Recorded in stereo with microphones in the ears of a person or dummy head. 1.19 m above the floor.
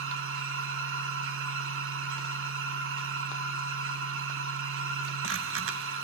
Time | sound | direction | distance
0.0 | a machine running | 65° right (ahead or behind) | 1.3 m